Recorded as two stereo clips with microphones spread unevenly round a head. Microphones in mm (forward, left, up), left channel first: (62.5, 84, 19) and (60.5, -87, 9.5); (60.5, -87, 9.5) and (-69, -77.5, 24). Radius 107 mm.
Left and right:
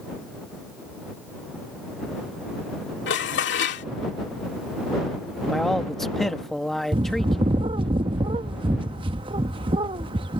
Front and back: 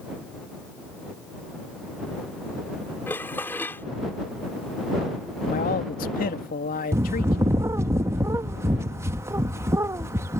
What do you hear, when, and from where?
3.1 s dishes clattering: 80° left
5.5 s a man speaking: straight ahead
6.9 s a bird: 140° right